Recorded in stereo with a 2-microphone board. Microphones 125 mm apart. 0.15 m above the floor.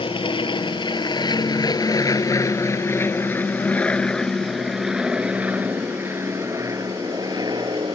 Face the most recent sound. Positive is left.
turn(degrees=-40)  # may be behind; listen again after turning